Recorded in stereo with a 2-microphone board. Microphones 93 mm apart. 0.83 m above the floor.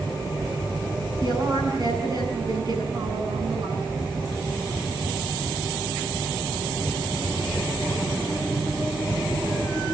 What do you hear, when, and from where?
1.2 s a woman speaking: 50° right (ahead or behind), 8.5 m